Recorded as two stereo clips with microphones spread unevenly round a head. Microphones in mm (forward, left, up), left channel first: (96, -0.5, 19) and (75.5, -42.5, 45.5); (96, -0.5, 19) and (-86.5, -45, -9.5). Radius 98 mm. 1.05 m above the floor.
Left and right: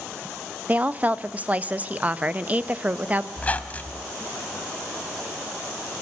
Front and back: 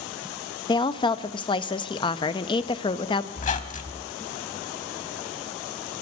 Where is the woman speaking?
55° right, 0.8 m.